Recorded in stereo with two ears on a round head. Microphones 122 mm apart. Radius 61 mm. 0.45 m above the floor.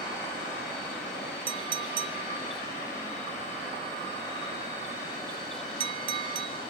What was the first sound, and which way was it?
A clink, 40° right (ahead or behind).